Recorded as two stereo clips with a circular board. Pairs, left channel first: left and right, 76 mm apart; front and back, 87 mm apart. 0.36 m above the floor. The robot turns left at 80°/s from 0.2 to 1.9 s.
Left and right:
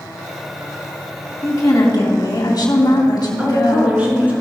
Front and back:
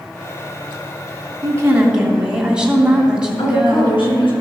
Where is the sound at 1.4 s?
140° left, 2.5 m; by 4.1 s 100° left, 2.5 m.